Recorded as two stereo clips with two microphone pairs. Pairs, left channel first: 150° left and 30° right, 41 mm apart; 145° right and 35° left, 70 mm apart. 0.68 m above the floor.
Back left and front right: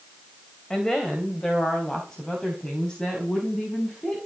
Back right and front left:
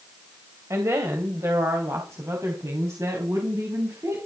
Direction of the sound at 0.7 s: 75° left.